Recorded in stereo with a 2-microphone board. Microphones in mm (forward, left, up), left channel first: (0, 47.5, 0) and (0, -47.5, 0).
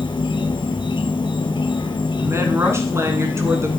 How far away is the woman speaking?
About 1.4 m.